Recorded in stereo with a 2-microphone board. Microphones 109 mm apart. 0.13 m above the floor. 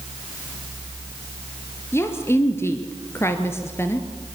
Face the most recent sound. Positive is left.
turn(degrees=25)  # may be behind; listen again after turning